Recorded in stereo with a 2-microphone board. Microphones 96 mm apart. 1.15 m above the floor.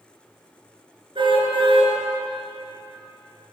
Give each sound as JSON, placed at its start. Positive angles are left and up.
{"t": 1.1, "sound": "a car horn", "side_deg": -60, "distance_m": 8.5}